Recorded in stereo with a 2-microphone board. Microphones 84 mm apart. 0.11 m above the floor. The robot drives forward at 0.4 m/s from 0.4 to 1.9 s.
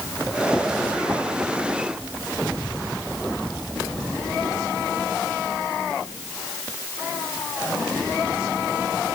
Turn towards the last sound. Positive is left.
No sound to turn to.